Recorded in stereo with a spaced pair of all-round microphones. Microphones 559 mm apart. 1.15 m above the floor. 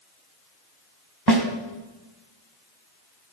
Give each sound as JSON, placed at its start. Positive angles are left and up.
{"t": 1.3, "sound": "a snare drum", "side_deg": -40, "distance_m": 1.7}